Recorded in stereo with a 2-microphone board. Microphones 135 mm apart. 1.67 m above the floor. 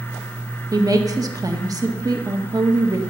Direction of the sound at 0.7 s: 25° right (ahead or behind).